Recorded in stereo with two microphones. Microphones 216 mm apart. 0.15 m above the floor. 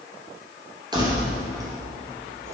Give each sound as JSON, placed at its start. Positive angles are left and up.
{"t": 0.9, "sound": "keys jangling", "side_deg": -20, "distance_m": 2.5}